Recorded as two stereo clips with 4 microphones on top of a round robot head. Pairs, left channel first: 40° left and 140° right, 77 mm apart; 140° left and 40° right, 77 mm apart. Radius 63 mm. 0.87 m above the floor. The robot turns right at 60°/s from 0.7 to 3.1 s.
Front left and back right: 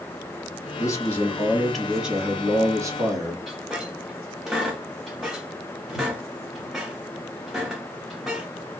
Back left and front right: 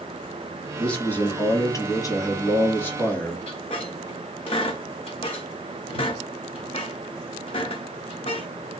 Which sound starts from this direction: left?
A man speaking, at 0.8 s.